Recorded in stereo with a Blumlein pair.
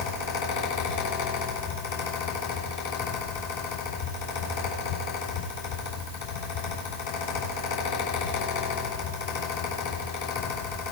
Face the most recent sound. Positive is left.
turn(degrees=55)